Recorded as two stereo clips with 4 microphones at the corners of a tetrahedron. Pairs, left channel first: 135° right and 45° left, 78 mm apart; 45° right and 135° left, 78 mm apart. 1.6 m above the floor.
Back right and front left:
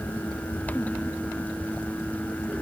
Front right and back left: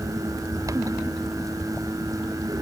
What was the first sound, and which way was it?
Only background noise.